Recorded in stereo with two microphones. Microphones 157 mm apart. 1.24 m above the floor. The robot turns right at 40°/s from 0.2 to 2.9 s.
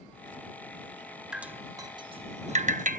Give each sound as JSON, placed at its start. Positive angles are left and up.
{"t": 1.3, "sound": "dripping", "side_deg": -5}